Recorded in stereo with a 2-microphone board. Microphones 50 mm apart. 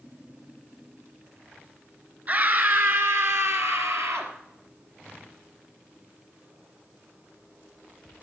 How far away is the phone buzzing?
I don't hear a phone buzzing.